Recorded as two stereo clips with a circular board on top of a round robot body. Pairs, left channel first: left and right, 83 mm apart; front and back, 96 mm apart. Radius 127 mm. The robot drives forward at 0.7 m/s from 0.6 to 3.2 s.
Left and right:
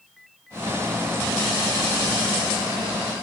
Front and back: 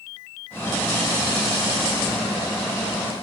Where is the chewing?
No chewing in this recording.